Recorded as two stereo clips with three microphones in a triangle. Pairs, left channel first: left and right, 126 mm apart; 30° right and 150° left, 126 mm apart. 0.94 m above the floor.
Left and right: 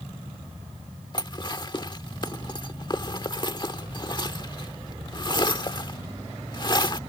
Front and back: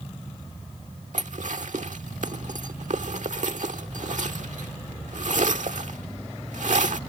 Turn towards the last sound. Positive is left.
turn(degrees=140)